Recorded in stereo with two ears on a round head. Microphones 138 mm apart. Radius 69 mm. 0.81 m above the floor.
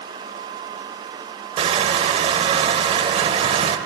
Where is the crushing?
35° right (ahead or behind), 0.6 m.